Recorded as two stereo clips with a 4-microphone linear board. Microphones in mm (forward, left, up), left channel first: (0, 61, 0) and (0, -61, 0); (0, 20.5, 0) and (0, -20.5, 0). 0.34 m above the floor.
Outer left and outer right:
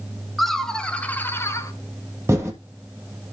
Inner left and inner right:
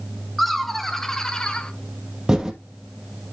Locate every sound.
0.4 s laughter: centre (ahead or behind), 2 m; by 1.7 s 25° left (ahead or behind), 1.6 m
2.3 s typing on a keyboard: 20° right (ahead or behind), 2.5 m